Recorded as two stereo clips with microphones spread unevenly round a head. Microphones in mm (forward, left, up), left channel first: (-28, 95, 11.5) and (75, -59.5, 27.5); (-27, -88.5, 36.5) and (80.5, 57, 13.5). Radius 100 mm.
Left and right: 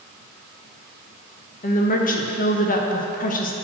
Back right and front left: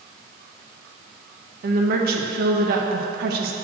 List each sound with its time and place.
1.6 s a woman speaking: 85° left, 0.7 m